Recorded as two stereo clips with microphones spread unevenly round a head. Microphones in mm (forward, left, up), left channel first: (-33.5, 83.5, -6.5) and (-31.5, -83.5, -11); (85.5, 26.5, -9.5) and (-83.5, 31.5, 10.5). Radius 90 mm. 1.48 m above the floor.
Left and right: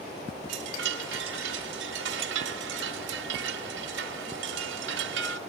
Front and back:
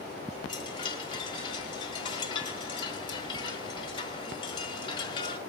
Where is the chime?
70° right, 1.4 m.